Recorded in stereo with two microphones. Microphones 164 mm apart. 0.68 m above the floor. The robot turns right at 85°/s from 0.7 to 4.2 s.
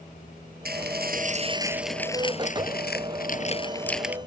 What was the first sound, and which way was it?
Dishes clattering, 100° right.